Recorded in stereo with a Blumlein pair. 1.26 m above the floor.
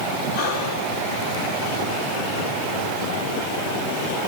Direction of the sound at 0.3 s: 35° left.